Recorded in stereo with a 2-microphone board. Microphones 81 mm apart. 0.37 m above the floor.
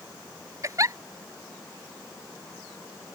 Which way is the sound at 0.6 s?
40° right (ahead or behind).